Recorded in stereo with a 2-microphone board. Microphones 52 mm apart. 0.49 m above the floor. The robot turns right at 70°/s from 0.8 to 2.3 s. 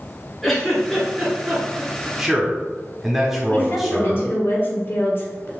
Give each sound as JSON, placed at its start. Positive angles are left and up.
{"t": 0.4, "sound": "a giggle", "side_deg": 5, "distance_m": 1.5}
{"t": 2.2, "sound": "a man speaking", "side_deg": -5, "distance_m": 0.9}
{"t": 3.5, "sound": "a woman speaking", "side_deg": 50, "distance_m": 1.2}